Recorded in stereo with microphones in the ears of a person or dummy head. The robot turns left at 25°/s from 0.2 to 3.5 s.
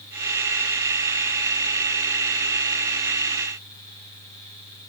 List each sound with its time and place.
Only background noise.